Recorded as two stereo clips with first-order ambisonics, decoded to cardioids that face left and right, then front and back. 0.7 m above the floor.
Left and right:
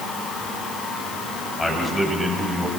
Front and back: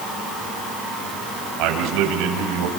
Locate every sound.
1.6 s a man speaking: 170° left, 4 m; by 2.7 s 175° right, 4.5 m